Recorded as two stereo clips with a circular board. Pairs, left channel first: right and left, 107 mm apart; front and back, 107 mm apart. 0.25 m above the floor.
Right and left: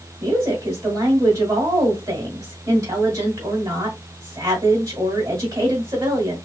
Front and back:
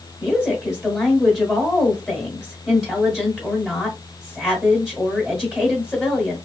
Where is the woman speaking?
105° left, 1.6 m.